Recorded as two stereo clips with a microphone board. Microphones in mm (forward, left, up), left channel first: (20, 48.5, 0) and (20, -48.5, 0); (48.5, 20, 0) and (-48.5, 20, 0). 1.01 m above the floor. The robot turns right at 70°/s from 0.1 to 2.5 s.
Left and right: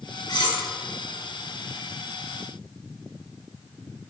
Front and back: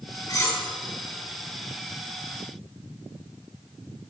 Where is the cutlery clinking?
50° left, 2 m; by 0.6 s 70° left, 2 m.